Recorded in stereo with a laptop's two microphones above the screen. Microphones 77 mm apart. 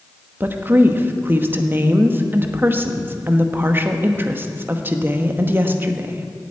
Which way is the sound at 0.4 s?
30° right (ahead or behind).